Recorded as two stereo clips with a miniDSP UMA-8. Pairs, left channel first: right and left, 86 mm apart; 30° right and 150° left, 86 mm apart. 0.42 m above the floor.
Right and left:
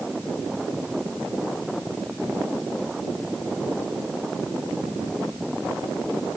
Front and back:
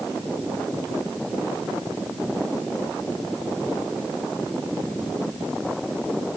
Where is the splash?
No splash in this recording.